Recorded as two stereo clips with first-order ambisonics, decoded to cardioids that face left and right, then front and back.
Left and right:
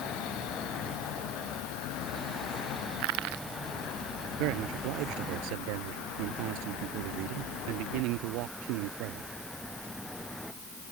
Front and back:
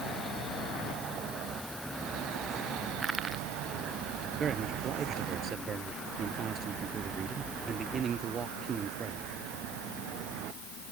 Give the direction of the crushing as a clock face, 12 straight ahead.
3 o'clock.